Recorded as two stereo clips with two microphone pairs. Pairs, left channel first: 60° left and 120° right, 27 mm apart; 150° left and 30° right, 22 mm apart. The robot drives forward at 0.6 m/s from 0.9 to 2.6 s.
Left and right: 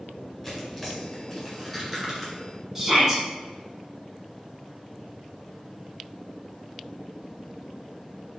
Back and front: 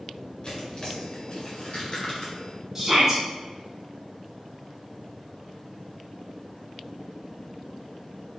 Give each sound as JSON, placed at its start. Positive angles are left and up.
{"t": 0.4, "sound": "tearing paper", "azimuth_deg": 145, "distance_m": 2.0}
{"t": 2.8, "sound": "a shout", "azimuth_deg": -70, "distance_m": 1.5}